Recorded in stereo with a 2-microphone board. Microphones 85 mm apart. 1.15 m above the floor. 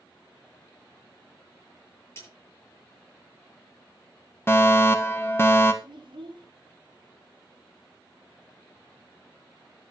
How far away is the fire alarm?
About 1.6 m.